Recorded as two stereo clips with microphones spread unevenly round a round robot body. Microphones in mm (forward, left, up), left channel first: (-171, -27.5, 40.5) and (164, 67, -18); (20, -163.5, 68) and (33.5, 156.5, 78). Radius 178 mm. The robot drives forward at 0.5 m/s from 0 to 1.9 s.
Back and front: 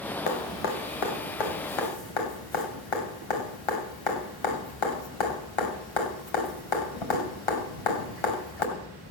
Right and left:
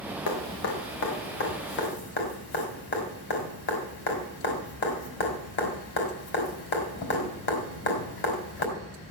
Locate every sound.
0.3 s dripping: 140° right, 1.9 m; by 8.7 s 150° right, 2.5 m